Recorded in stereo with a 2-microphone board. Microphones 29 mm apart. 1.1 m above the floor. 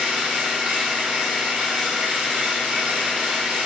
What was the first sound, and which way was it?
An engine running, 75° right (ahead or behind).